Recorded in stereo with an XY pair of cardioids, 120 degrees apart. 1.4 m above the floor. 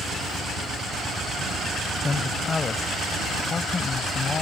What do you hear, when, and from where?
2.0 s a man speaking: 25° left; by 4.4 s 40° left